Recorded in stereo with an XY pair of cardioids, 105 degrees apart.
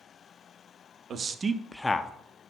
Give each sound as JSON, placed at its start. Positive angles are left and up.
{"t": 1.1, "sound": "a man speaking", "azimuth_deg": -50, "distance_m": 0.8}